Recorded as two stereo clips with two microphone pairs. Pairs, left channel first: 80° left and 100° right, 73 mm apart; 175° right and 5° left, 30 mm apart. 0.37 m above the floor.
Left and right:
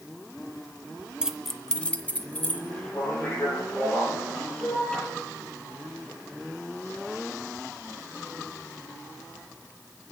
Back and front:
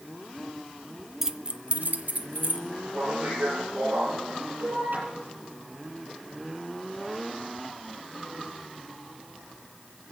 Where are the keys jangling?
55° right, 0.5 m; by 2.6 s 15° left, 1.6 m.